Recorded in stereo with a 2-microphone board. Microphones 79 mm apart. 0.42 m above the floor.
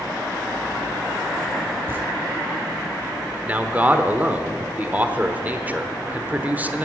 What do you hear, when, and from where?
1.9 s footsteps: 30° right (ahead or behind), 1.5 m
3.5 s a man speaking: 20° right (ahead or behind), 0.9 m